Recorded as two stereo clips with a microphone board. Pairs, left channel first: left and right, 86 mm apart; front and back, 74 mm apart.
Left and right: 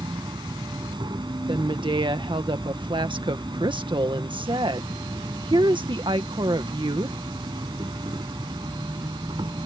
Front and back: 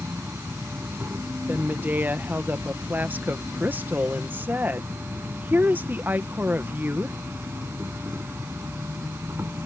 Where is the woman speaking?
115° right.